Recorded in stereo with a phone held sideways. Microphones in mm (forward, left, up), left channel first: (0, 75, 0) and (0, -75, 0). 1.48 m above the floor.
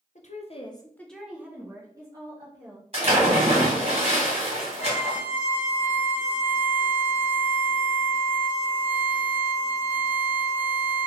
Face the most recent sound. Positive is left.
turn(degrees=-15)  # may be behind; listen again after turning